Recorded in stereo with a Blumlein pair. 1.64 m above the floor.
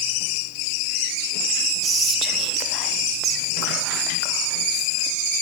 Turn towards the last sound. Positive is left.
turn(degrees=-25)